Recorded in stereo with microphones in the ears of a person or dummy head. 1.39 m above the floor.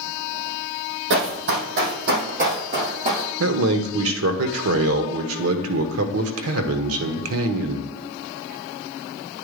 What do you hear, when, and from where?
1.1 s running footsteps: 65° right (ahead or behind), 3.5 m; by 3.3 s 35° right (ahead or behind), 4.5 m
3.4 s a man speaking: 80° right, 1.1 m